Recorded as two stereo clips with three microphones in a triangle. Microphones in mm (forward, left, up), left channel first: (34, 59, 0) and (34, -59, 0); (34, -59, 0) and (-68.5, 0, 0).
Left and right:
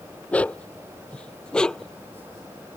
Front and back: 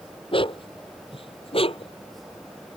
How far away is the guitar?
I don't hear a guitar.